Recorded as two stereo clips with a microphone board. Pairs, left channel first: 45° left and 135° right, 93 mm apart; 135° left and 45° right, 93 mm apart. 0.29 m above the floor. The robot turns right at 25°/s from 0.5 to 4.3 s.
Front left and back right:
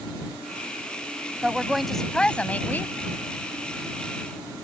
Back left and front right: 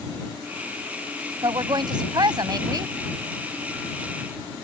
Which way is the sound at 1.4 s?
55° right.